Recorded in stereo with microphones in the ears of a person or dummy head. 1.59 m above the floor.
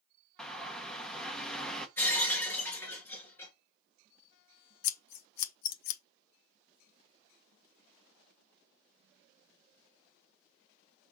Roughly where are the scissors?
Left.